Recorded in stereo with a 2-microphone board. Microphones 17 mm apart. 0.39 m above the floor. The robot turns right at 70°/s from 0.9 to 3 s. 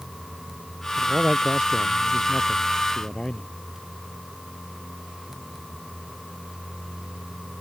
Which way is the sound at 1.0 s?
95° right.